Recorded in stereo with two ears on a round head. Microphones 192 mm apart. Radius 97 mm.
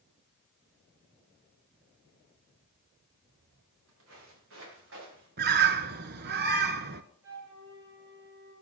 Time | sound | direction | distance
3.3 | footsteps | 65° right (ahead or behind) | 7 m
5.4 | a bird | 45° right (ahead or behind) | 0.9 m
7.2 | a flute | 60° right (ahead or behind) | 7.5 m